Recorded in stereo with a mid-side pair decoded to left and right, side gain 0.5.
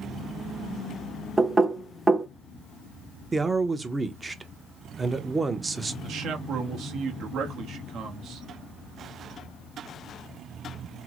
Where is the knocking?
20° right, 0.7 m.